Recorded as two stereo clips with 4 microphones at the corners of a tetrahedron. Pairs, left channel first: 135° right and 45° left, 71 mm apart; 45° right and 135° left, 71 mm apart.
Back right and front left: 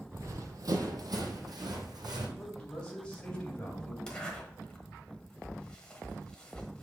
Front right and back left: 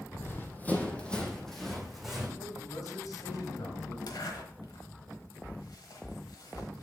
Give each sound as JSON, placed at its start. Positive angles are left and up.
{"t": 0.1, "sound": "running footsteps", "azimuth_deg": 5, "distance_m": 1.1}
{"t": 2.4, "sound": "a man speaking", "azimuth_deg": -60, "distance_m": 2.0}
{"t": 4.1, "sound": "a zipper", "azimuth_deg": -55, "distance_m": 1.2}